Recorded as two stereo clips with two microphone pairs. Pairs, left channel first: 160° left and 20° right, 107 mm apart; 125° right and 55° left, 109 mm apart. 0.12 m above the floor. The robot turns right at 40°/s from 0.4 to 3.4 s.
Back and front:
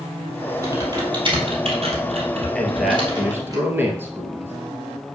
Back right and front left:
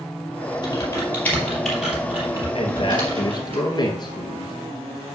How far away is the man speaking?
About 2 m.